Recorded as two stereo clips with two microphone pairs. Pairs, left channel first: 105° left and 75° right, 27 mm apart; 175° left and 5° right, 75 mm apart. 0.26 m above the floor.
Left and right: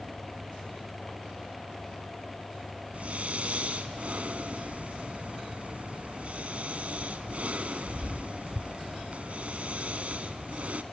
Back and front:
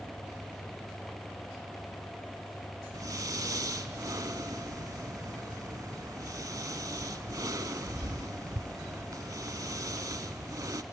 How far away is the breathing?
About 0.6 m.